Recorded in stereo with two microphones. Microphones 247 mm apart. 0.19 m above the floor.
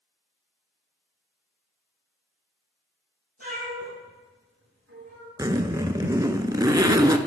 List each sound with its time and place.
3.4 s a cat meowing: 75° right (ahead or behind), 4 m; by 5.3 s 80° right, 6.5 m
5.4 s a zipper: 15° right (ahead or behind), 0.5 m